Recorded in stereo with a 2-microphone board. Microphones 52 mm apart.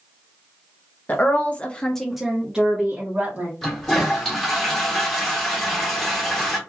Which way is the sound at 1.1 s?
35° left (ahead or behind).